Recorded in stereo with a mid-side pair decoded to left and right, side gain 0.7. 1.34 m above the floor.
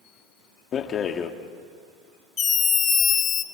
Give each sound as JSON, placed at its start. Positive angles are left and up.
{"t": 0.7, "sound": "a rattle", "azimuth_deg": 40, "distance_m": 1.9}
{"t": 2.4, "sound": "a scream", "azimuth_deg": 30, "distance_m": 2.0}